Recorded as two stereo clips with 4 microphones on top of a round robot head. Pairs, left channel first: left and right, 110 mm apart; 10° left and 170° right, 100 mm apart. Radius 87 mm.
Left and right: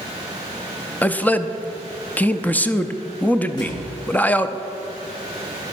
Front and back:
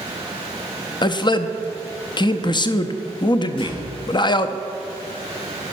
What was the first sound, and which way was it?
A man speaking, 20° left.